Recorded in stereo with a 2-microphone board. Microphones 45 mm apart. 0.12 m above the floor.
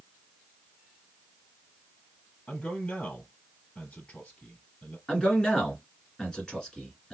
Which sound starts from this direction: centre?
A man speaking, at 5.1 s.